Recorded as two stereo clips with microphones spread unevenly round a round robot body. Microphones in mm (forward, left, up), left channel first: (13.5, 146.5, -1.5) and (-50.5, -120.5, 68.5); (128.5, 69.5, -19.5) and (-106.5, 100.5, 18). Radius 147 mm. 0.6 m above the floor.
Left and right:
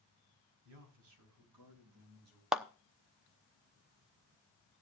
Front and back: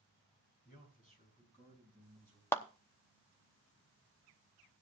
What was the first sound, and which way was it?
A man speaking, 65° right.